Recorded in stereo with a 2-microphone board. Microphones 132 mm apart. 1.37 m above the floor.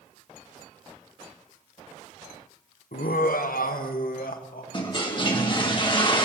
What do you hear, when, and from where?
2.9 s laughter: 80° left, 0.7 m; by 4.6 s 90° left, 1.9 m
4.7 s a toilet flushing: 35° left (ahead or behind), 1.9 m